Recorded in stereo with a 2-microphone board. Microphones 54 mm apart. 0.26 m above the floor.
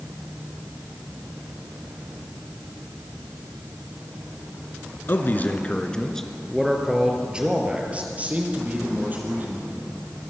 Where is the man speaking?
45° left (ahead or behind), 2.5 m; by 9.7 s 35° right (ahead or behind), 7 m.